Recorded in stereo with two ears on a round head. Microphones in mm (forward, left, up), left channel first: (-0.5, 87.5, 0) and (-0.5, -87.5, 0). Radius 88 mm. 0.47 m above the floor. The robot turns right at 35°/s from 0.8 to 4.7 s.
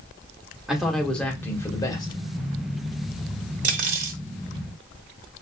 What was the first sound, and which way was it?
A man speaking, straight ahead.